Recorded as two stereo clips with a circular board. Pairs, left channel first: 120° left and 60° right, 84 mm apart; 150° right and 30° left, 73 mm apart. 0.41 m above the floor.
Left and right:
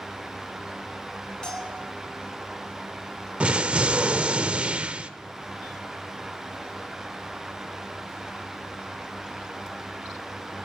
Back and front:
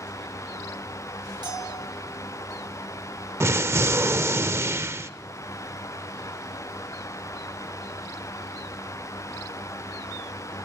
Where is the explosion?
10° left, 0.7 m.